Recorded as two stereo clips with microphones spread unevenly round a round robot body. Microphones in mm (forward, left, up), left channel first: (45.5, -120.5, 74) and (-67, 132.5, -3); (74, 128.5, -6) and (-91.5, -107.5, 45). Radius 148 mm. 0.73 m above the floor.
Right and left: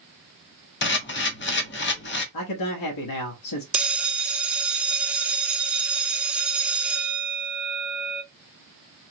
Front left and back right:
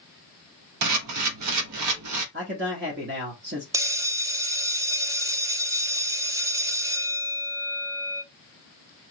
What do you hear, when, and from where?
0.8 s a camera shutter: 120° right, 1.0 m
2.3 s a man speaking: 65° right, 1.0 m
3.7 s a bell: 145° left, 0.5 m